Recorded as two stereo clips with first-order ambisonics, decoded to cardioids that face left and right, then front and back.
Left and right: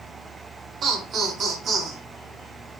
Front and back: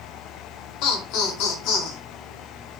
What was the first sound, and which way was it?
Laughter, 25° right.